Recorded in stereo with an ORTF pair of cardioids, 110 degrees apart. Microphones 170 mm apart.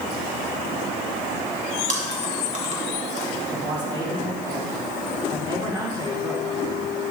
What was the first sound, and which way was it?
Chewing, 45° right.